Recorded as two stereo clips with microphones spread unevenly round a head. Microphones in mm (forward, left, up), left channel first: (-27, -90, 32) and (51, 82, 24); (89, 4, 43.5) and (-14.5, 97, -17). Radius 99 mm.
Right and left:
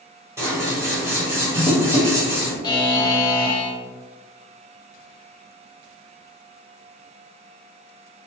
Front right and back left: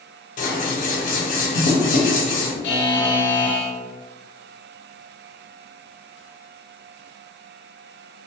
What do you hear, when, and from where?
0.4 s scissors: 10° right, 0.7 m
2.6 s a buzzer: 45° right, 0.5 m